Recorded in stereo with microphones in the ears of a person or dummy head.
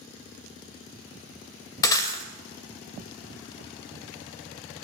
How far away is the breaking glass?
About 1.8 m.